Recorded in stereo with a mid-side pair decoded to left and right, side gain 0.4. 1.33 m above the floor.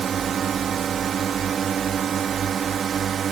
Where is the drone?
60° right.